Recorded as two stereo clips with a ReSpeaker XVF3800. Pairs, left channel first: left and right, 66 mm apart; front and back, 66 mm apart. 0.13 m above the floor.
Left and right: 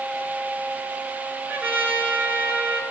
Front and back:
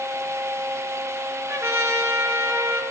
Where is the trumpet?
150° right, 1.9 m.